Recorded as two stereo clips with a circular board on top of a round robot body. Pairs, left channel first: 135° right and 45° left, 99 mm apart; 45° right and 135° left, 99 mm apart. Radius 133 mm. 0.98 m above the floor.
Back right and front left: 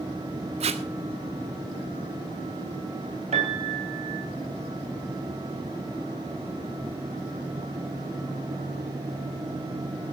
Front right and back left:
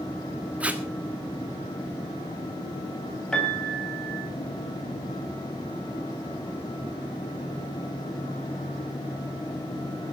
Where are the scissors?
I don't hear scissors.